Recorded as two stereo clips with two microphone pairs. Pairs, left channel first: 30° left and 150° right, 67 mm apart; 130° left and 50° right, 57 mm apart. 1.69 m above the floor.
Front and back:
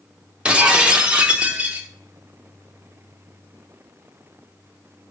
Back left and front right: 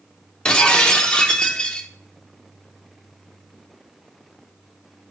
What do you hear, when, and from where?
0.5 s breaking glass: 160° left, 0.8 m